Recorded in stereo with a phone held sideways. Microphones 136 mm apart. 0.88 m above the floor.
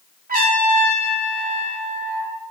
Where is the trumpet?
85° right, 1.3 m.